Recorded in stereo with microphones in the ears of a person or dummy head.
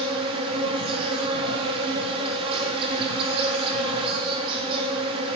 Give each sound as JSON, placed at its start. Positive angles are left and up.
{"t": 0.0, "sound": "an insect", "side_deg": -30, "distance_m": 1.9}